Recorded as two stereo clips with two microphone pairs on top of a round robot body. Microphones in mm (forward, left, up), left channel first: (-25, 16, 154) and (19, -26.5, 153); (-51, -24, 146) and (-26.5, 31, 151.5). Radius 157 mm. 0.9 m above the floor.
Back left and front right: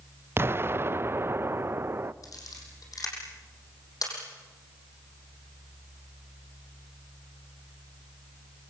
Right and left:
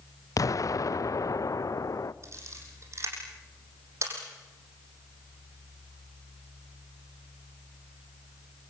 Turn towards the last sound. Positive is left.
turn(degrees=110)